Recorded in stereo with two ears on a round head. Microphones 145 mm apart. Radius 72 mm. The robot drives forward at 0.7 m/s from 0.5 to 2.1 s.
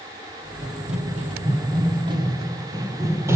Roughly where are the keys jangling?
I don't hear keys jangling.